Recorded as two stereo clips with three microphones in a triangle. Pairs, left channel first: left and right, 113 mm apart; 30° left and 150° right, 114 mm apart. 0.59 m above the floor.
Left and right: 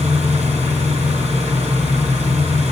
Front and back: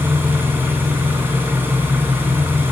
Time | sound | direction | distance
0.0 | an engine running | 80° right | 4 m